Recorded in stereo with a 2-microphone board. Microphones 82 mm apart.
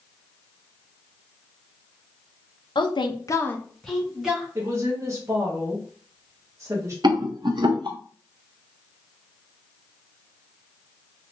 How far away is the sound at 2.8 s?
About 0.8 m.